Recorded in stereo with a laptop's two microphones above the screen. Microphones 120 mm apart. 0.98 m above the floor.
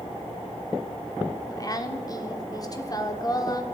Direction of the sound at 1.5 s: 30° left (ahead or behind).